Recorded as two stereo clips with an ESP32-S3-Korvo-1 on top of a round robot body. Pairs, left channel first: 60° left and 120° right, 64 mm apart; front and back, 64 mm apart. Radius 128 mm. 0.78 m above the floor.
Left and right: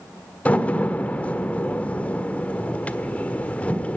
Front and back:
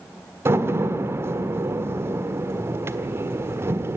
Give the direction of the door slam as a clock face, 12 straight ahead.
8 o'clock.